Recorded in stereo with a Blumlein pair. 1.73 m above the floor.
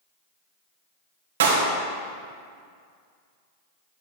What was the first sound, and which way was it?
A clap, 60° right.